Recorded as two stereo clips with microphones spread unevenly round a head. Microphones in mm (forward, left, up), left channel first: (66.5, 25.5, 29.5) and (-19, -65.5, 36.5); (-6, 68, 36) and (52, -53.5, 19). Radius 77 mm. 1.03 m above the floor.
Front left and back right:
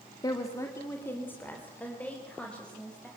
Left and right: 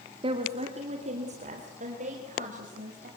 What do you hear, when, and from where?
0.2 s a woman speaking: 15° right, 1.7 m; by 3.1 s 35° right, 5 m